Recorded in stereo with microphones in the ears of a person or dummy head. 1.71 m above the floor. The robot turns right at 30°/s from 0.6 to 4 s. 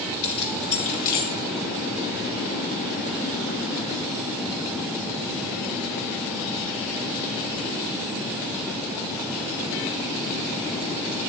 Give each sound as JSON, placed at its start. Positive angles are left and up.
{"t": 0.2, "sound": "keys jangling", "side_deg": 35, "distance_m": 1.7}